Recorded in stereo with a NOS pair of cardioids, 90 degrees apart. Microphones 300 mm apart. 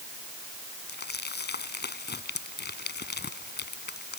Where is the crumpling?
35° left.